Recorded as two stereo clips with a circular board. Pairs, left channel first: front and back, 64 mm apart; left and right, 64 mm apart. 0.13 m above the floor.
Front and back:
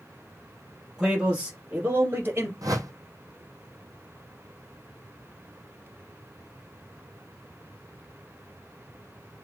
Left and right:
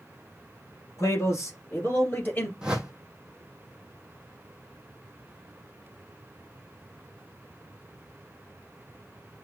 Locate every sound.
1.0 s a man speaking: 95° left, 1.9 m; by 2.5 s 145° left, 2.5 m
2.6 s a whoosh: 170° right, 0.9 m